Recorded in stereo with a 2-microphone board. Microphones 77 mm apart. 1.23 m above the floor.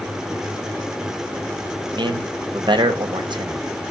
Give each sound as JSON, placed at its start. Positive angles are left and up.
{"t": 1.9, "sound": "a man speaking", "side_deg": -70, "distance_m": 0.6}